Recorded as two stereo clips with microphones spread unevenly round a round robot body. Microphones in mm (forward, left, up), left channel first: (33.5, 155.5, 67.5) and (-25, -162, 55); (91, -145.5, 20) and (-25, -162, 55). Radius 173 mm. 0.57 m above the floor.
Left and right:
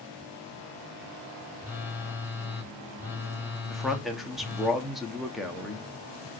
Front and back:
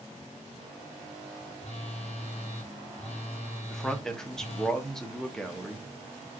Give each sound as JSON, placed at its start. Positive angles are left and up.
{"t": 1.6, "sound": "a phone buzzing", "azimuth_deg": -15, "distance_m": 1.5}
{"t": 3.7, "sound": "a man speaking", "azimuth_deg": -20, "distance_m": 0.8}